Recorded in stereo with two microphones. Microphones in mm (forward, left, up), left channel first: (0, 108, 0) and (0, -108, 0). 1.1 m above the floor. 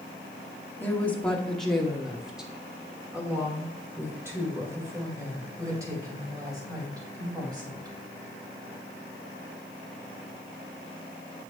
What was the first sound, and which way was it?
A woman speaking, 10° left (ahead or behind).